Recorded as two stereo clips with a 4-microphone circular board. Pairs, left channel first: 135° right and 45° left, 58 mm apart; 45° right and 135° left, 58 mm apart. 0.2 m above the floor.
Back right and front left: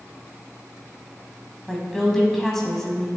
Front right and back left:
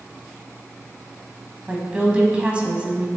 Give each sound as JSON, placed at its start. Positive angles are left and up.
{"t": 1.7, "sound": "a woman speaking", "azimuth_deg": 150, "distance_m": 1.2}